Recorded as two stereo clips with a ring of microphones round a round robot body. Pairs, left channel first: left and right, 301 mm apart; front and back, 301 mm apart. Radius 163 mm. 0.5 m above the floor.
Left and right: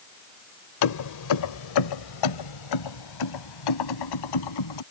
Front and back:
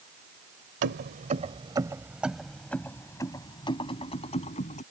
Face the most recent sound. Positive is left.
turn(degrees=70)